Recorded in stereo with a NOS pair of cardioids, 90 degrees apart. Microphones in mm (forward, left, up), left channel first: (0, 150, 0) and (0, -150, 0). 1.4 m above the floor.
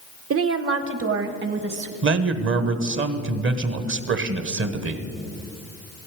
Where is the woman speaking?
50° right, 1.0 m; by 1.9 s 35° right, 1.8 m.